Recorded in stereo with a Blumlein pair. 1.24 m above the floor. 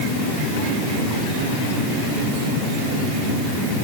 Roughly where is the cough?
I don't hear a cough.